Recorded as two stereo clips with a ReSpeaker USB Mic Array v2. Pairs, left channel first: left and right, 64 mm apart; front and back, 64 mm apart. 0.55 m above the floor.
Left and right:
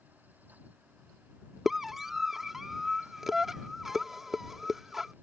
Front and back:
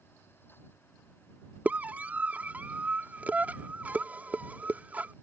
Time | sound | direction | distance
1.6 | a scream | 170° right | ?